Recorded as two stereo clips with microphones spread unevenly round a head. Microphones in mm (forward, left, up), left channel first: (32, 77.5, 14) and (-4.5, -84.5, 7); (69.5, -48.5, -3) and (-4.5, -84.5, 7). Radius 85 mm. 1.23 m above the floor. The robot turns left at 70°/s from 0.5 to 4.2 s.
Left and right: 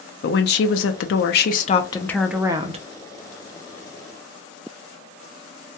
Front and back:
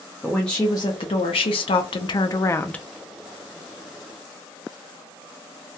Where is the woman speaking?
110° left, 0.5 m; by 2.9 s 55° right, 0.5 m.